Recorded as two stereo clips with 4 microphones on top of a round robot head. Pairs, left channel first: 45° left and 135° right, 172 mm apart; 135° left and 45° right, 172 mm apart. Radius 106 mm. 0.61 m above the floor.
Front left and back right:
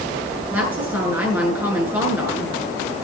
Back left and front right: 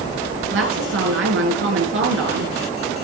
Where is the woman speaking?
55° right, 8.5 m.